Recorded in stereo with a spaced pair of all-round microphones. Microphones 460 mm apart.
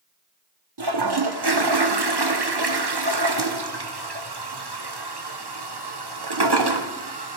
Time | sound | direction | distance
0.8 | a toilet flushing | 55° right (ahead or behind) | 1.1 m